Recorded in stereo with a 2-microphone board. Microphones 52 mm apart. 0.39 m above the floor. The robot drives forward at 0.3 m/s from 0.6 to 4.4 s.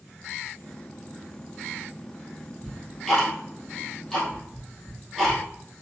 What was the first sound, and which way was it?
Ticking, 5° left (ahead or behind).